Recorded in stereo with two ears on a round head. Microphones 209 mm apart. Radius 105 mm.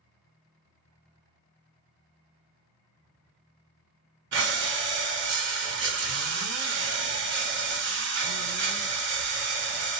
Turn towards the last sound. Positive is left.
turn(degrees=-55)  # may be behind; listen again after turning